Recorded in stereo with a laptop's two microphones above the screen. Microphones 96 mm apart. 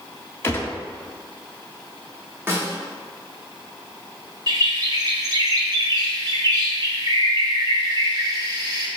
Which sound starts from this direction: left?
A gunshot, at 0.4 s.